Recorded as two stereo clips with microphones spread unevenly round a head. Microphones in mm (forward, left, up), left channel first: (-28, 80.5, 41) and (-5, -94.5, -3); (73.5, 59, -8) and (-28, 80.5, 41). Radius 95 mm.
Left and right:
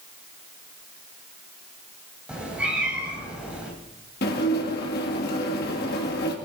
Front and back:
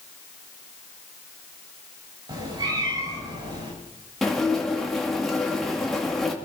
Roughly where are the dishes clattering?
Left.